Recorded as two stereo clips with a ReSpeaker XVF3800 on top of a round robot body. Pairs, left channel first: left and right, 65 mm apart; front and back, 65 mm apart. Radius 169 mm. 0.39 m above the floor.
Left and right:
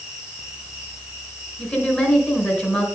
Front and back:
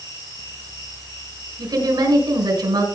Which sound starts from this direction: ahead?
An insect, at 0.0 s.